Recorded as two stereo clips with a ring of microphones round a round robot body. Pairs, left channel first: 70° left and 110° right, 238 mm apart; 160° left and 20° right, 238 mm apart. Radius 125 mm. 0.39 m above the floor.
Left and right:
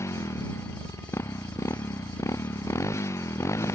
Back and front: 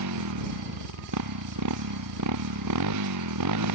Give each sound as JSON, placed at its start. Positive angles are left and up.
{"t": 0.0, "sound": "a motorcycle", "azimuth_deg": -10}